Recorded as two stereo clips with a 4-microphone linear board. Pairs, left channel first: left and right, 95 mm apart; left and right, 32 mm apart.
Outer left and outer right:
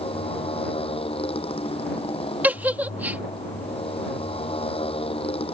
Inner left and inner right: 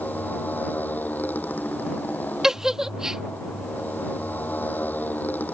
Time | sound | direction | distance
0.0 | a motorcycle | 80° left | ?
2.4 | a giggle | 15° right (ahead or behind) | ?